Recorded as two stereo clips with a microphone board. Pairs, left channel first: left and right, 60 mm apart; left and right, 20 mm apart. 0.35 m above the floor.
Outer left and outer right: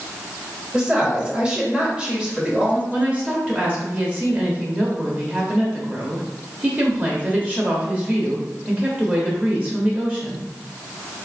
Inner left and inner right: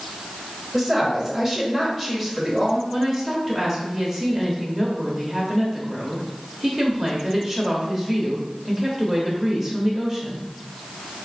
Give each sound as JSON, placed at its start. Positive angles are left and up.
{"t": 0.7, "sound": "a woman speaking", "side_deg": -15, "distance_m": 1.3}
{"t": 2.9, "sound": "a woman speaking", "side_deg": -25, "distance_m": 0.9}